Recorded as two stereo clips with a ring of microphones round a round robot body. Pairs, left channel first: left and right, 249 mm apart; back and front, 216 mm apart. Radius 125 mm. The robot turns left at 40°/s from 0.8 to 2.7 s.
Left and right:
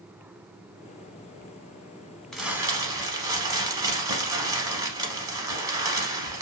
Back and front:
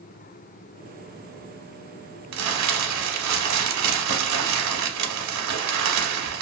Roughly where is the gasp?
I don't hear a gasp.